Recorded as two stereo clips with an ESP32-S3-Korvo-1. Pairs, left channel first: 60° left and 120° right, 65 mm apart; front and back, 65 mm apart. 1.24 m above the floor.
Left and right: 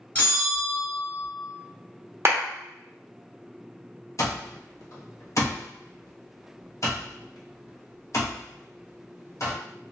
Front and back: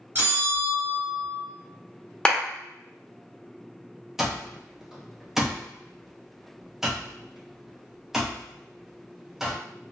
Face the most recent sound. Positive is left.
turn(degrees=95)